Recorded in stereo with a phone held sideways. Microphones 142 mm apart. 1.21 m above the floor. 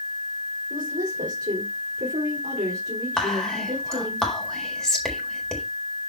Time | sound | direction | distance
0.7 | a woman speaking | 70° right (ahead or behind) | 3.5 m
3.2 | whispering | 5° left (ahead or behind) | 4 m